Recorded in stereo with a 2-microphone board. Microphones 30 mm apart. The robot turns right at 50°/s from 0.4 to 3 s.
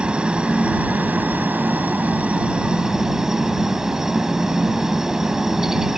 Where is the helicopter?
145° right; by 6.0 s 15° right.